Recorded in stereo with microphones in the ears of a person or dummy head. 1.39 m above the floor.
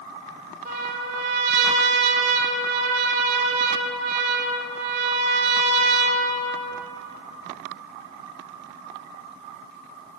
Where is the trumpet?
45° right (ahead or behind), 3 m.